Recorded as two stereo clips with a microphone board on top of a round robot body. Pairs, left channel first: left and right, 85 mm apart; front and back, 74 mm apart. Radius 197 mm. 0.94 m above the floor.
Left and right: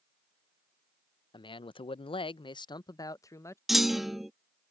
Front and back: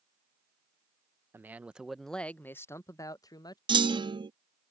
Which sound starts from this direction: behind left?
A man speaking, at 1.3 s.